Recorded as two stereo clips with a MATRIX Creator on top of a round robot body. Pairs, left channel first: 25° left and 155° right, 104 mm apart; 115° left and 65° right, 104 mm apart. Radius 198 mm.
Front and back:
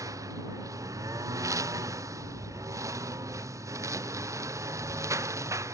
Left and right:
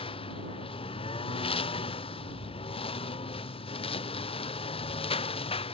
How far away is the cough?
No cough in this recording.